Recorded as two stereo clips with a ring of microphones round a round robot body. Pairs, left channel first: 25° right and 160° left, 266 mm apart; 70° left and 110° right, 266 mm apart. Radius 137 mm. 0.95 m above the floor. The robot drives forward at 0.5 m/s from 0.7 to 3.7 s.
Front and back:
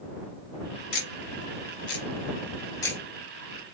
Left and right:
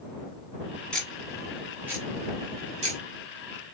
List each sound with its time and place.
0.9 s ticking: 20° right, 1.3 m; by 3.0 s 100° right, 0.8 m